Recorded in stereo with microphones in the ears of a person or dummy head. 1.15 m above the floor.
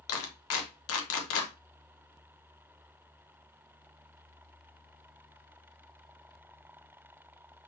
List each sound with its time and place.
0.1 s a clap: 70° left (ahead or behind), 1.2 m